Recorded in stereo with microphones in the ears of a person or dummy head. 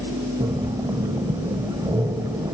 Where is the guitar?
No guitar in this recording.